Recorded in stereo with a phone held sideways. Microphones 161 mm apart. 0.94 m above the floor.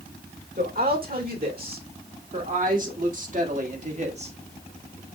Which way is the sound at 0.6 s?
60° right (ahead or behind).